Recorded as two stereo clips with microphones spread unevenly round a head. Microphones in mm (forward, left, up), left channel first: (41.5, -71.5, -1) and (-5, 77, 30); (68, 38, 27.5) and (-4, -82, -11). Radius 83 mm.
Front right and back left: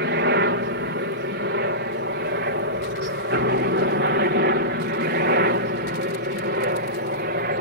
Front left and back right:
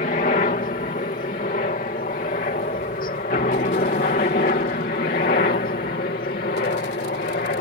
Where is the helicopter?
105° left; by 7.6 s 90° left.